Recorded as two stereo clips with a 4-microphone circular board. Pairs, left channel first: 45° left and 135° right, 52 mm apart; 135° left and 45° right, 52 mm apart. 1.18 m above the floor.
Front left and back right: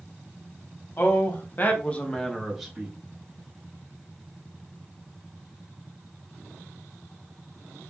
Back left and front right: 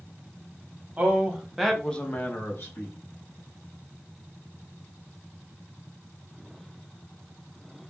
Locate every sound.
1.0 s a man speaking: 15° left, 0.9 m; by 3.0 s 150° left, 0.9 m